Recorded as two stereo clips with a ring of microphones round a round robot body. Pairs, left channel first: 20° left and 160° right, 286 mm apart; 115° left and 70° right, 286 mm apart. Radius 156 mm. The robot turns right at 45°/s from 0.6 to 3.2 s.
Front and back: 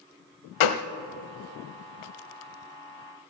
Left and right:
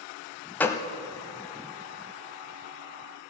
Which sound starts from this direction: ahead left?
A gunshot, at 0.6 s.